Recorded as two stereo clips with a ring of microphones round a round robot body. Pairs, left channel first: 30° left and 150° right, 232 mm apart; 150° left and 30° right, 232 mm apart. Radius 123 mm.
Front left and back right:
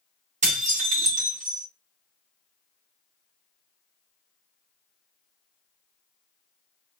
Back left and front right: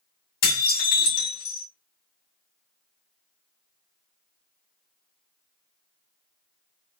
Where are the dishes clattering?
150° left, 2 m.